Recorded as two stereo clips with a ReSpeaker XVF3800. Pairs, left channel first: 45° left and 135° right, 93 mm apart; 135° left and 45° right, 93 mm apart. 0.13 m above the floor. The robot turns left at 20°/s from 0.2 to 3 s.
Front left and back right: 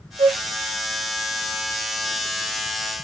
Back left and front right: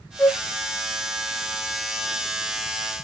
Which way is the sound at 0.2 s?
145° right.